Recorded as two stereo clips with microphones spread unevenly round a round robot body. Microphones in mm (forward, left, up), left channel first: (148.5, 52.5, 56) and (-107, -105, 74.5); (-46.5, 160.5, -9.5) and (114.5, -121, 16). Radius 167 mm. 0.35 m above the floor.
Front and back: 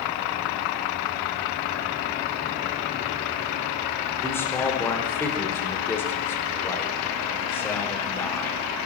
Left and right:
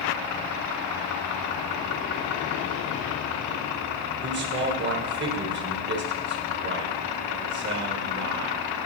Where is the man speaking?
35° right, 1.5 m.